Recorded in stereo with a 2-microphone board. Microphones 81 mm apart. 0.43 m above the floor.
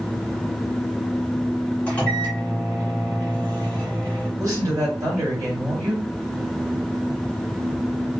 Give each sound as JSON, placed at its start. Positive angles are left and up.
{"t": 1.9, "sound": "a microwave", "side_deg": 15, "distance_m": 1.4}
{"t": 4.4, "sound": "a woman speaking", "side_deg": -50, "distance_m": 1.8}